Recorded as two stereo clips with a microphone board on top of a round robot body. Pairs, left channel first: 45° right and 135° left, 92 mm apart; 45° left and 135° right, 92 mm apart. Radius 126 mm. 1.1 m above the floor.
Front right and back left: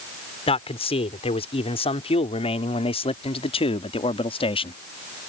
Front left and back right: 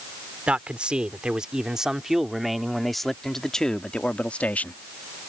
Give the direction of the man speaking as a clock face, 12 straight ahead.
2 o'clock.